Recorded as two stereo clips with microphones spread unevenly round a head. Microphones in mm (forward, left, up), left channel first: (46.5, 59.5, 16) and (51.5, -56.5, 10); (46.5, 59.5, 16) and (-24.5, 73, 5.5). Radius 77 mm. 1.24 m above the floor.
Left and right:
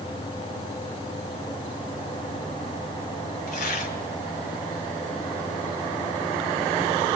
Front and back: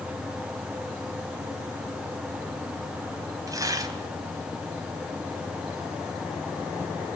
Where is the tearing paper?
130° left, 2.5 m.